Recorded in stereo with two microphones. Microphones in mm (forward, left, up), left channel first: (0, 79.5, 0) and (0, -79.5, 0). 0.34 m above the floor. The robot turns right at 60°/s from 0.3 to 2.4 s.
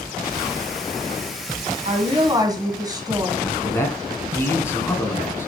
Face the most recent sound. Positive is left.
turn(degrees=15)  # may be behind; listen again after turning